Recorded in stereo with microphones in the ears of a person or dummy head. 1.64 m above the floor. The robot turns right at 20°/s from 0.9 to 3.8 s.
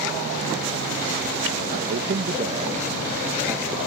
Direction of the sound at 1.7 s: 55° right.